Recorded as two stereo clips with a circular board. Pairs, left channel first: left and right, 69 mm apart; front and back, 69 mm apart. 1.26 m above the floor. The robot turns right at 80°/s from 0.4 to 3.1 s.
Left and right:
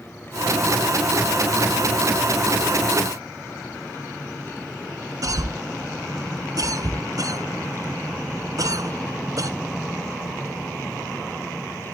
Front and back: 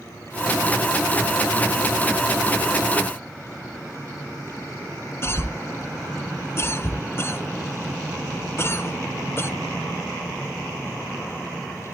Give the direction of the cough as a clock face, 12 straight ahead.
2 o'clock.